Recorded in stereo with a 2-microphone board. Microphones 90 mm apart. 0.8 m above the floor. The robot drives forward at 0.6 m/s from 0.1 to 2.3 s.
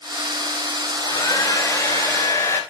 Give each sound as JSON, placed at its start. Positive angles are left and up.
{"t": 0.9, "sound": "a hair dryer", "side_deg": 45, "distance_m": 1.7}